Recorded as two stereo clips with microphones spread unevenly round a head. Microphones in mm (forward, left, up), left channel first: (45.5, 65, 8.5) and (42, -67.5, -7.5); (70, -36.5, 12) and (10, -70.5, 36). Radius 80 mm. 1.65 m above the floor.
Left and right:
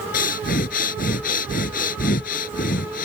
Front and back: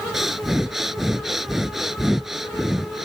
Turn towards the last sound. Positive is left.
turn(degrees=125)